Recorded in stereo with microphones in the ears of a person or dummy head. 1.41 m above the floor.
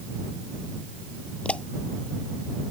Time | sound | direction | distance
1.4 | a pop | 10° left (ahead or behind) | ?